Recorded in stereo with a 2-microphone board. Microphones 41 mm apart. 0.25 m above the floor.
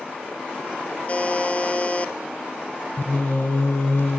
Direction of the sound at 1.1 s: 35° left (ahead or behind).